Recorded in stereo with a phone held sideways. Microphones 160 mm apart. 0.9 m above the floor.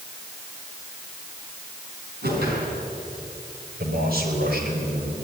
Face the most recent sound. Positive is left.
turn(degrees=-75)  # may be behind; listen again after turning